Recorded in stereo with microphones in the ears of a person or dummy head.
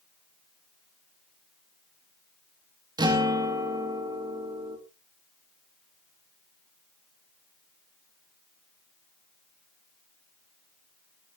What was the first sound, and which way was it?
A guitar, 20° right (ahead or behind).